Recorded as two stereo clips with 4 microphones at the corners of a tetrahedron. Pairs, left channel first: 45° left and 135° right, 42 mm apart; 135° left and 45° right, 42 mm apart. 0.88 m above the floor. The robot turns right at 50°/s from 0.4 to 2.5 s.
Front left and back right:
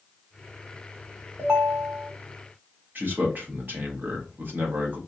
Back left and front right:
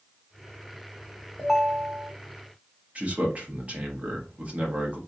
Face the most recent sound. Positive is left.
turn(degrees=-100)